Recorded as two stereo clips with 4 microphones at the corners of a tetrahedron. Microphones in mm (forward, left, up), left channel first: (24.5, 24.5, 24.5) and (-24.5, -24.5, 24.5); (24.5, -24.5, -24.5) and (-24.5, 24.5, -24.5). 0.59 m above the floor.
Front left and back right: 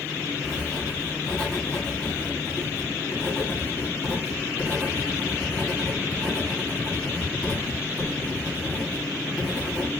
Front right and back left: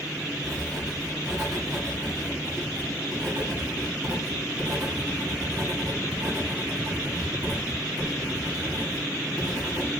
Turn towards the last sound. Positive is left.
turn(degrees=115)